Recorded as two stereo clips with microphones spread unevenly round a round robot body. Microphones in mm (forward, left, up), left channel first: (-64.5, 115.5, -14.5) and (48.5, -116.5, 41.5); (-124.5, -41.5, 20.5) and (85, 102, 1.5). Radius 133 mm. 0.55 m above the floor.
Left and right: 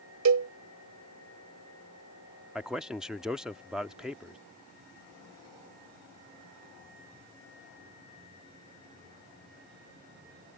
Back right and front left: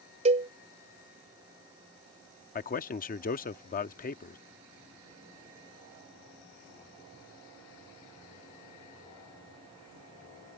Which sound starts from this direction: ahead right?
A cowbell, at 0.2 s.